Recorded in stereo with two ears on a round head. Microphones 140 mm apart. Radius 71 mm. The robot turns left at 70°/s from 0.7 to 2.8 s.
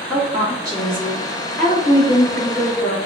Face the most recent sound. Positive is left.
turn(degrees=80)